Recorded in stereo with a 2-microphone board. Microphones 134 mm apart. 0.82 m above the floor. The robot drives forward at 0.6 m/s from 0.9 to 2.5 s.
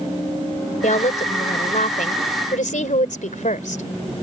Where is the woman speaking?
70° left (ahead or behind); by 3.8 s 80° left.